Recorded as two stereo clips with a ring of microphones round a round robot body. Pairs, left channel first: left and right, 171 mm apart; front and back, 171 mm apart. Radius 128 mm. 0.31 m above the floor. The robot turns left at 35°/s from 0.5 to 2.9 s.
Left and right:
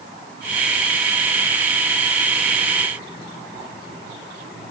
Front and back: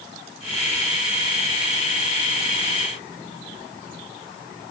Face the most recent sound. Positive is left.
No sound to turn to.